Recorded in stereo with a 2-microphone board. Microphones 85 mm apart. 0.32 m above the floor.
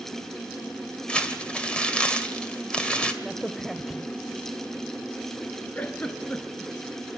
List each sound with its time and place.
1.1 s crumpling: 10° left (ahead or behind), 1.7 m
3.2 s a crack: centre (ahead or behind), 0.6 m
5.8 s a giggle: 15° left (ahead or behind), 1.7 m